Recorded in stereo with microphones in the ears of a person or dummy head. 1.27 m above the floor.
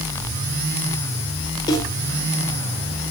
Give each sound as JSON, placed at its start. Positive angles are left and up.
{"t": 1.7, "sound": "a snare drum", "side_deg": 20, "distance_m": 5.5}